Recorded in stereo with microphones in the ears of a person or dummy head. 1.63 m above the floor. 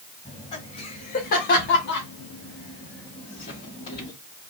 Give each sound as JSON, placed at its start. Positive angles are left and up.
{"t": 0.2, "sound": "laughter", "side_deg": 30, "distance_m": 1.7}